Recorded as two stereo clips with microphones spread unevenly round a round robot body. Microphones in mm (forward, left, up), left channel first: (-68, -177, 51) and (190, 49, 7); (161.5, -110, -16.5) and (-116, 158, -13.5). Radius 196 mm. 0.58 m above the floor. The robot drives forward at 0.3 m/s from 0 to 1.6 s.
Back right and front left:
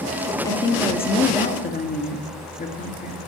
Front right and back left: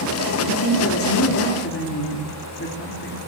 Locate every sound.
0.5 s a woman speaking: 55° right, 1.4 m; by 3.2 s 80° right, 1.3 m